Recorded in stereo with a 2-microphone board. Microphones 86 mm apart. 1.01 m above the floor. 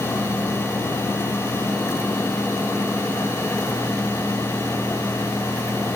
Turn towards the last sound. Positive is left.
No sound to turn to.